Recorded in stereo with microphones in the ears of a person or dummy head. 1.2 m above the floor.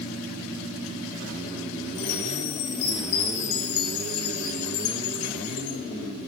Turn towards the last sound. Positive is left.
turn(degrees=70)  # may be behind; listen again after turning